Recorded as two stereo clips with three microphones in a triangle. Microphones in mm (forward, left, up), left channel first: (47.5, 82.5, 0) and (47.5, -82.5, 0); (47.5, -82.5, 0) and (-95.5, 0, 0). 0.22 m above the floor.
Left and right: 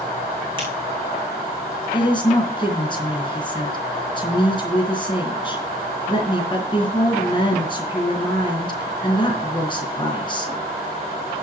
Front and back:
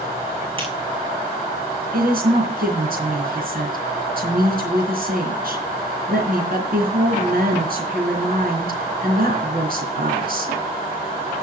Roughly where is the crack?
Behind right.